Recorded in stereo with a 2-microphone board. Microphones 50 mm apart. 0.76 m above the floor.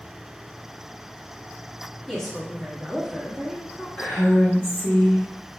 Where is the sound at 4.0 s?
50° left (ahead or behind), 1.2 m.